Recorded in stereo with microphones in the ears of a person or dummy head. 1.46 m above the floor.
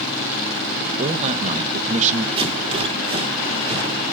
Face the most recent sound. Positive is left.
turn(degrees=-30)  # may be behind; listen again after turning